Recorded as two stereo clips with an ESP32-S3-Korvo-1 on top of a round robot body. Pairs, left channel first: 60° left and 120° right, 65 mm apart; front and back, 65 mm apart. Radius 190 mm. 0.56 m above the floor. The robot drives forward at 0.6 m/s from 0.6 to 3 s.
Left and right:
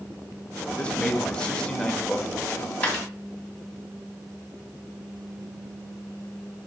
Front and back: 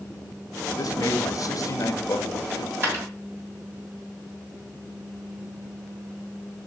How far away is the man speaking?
About 1.8 m.